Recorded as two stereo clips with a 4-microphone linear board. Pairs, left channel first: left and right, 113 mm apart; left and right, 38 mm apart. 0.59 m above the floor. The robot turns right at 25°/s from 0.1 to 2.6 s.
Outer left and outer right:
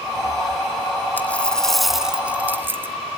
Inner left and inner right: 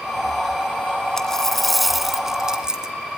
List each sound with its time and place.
1.2 s a dropped coin: 165° left, 1.8 m; by 3.0 s 160° right, 1.8 m